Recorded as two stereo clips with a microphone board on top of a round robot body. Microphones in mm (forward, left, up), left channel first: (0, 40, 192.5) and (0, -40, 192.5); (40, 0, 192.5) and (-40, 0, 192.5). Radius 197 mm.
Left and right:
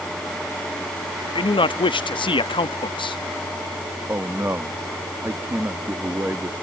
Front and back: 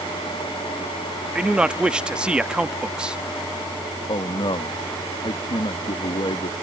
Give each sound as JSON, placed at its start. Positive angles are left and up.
{"t": 1.4, "sound": "a man speaking", "azimuth_deg": 100}
{"t": 4.1, "sound": "a man speaking", "azimuth_deg": -25}